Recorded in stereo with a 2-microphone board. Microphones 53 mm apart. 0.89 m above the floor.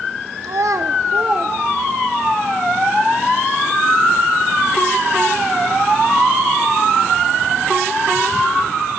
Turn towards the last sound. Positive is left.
turn(degrees=10)  # may be behind; listen again after turning